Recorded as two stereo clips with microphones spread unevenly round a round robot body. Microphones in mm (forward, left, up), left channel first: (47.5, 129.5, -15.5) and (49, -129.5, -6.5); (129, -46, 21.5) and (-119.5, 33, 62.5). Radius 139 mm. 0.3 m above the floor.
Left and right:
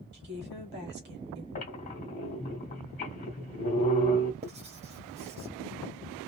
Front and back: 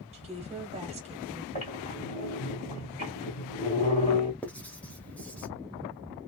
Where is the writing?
70° right, 1.1 m.